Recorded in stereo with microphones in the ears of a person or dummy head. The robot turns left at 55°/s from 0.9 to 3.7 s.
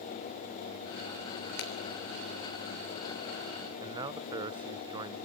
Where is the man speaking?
25° right (ahead or behind), 0.7 m.